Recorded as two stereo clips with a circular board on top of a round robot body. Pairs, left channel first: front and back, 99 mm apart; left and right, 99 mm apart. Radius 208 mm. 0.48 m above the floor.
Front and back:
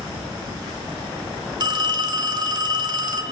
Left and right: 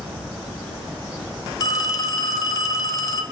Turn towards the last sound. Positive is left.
turn(degrees=140)